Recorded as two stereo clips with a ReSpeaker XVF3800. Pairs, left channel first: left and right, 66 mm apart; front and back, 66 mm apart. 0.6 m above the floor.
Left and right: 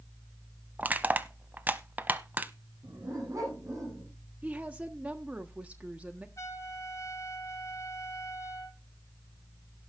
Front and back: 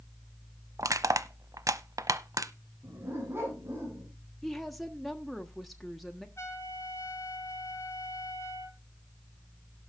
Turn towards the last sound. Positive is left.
turn(degrees=45)